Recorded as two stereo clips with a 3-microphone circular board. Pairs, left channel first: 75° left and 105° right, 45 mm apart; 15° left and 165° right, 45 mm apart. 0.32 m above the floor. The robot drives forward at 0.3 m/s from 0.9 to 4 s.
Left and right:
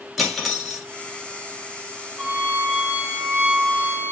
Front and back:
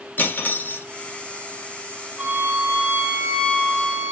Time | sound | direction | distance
0.2 | cutlery clinking | 15° right | 1.0 m
2.2 | a violin | 135° right | 1.5 m